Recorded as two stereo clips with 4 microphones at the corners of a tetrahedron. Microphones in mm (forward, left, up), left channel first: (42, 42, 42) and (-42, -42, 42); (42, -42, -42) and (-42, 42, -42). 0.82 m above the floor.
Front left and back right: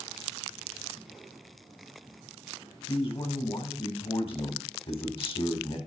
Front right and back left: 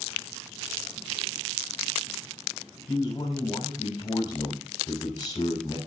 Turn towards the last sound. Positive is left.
turn(degrees=10)